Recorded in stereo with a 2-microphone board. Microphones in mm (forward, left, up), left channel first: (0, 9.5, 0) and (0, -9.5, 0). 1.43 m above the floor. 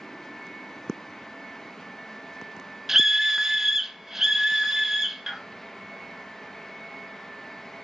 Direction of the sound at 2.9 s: 20° right (ahead or behind).